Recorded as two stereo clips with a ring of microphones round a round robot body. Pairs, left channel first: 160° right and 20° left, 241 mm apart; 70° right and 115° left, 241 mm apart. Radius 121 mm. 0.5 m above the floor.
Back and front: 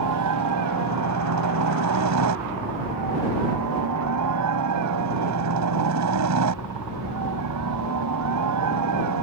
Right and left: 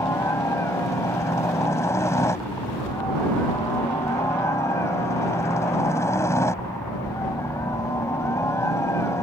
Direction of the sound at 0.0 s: 10° left.